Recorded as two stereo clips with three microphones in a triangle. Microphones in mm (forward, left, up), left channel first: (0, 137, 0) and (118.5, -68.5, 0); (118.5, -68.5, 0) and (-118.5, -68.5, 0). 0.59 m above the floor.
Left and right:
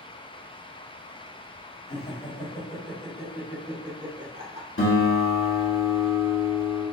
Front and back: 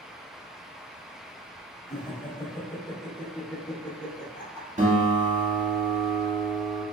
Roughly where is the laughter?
Ahead left.